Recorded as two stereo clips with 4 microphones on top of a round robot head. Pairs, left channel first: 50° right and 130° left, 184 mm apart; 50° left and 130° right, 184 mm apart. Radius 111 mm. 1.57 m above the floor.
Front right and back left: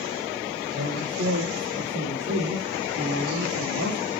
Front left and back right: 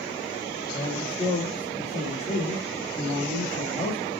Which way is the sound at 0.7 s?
105° left.